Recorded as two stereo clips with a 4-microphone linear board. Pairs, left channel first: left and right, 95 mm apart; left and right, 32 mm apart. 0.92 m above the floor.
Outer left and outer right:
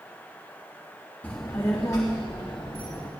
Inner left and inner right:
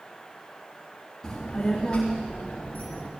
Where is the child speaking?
20° left (ahead or behind), 0.8 m; by 3.1 s 45° left (ahead or behind), 1.6 m.